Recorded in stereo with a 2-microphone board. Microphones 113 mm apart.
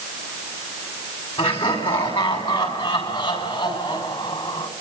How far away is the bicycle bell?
I don't hear a bicycle bell.